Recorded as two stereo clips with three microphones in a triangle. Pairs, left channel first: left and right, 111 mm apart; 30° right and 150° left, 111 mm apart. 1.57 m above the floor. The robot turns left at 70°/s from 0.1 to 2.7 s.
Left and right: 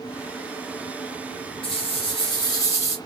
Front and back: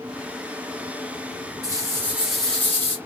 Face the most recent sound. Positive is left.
turn(degrees=35)